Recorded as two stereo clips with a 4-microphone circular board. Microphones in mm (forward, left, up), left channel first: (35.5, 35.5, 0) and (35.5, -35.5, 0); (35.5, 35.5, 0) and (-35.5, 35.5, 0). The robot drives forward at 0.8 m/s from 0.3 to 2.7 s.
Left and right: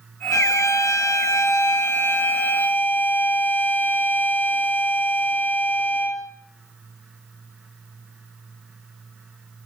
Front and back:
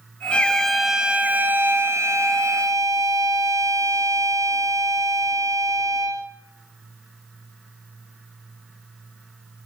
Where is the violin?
70° left, 1.2 m; by 6.3 s 150° left, 2.0 m.